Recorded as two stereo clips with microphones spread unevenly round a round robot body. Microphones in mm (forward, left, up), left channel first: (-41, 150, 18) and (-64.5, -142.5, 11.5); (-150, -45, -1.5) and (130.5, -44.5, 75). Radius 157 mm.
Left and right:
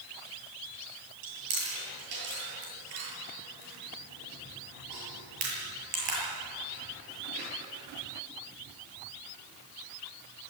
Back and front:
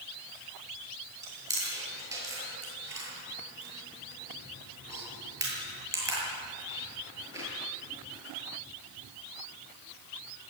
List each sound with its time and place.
1.2 s chewing: 80° right, 8.5 m